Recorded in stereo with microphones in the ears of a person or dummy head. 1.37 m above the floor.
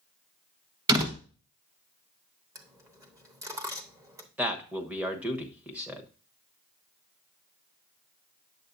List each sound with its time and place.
0.9 s a door slam: 20° right (ahead or behind), 1.2 m
2.5 s a dropped coin: 15° right (ahead or behind), 0.9 m
4.4 s a man speaking: 10° right (ahead or behind), 1.1 m